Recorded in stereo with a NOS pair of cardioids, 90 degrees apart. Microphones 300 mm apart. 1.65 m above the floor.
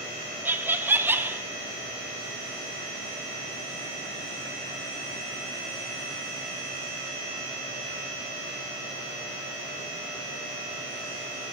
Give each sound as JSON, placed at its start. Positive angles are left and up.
{"t": 0.5, "sound": "laughter", "azimuth_deg": -5, "distance_m": 0.8}